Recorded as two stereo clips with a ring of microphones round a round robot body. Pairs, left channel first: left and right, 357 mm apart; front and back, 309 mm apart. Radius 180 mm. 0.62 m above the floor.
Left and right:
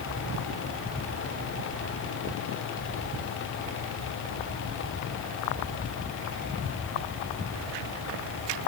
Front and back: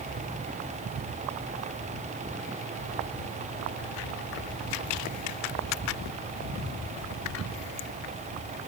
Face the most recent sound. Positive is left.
No sound to turn to.